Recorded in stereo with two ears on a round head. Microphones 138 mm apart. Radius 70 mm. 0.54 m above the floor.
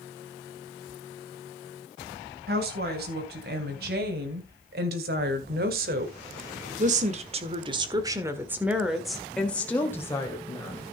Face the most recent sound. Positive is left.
turn(degrees=25)  # may be behind; listen again after turning